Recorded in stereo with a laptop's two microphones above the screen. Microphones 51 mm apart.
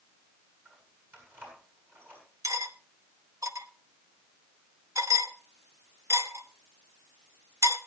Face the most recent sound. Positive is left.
turn(degrees=-85)